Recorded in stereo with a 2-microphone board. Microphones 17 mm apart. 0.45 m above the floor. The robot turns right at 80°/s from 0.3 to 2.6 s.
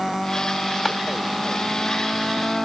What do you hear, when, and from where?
0.8 s a clap: 15° left (ahead or behind), 2.5 m; by 1.0 s 5° left (ahead or behind), 2.5 m